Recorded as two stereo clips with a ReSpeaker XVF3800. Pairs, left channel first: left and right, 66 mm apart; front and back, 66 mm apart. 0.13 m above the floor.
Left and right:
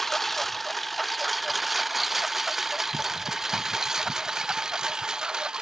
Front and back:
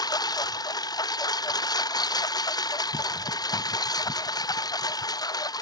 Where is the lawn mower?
5° left; by 5.6 s 10° right.